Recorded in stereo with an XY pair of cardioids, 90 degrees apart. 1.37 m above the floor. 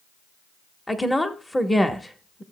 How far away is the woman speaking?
About 1.2 m.